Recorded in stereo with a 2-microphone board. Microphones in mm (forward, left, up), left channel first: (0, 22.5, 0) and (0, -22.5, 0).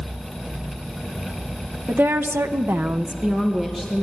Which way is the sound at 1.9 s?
60° right (ahead or behind).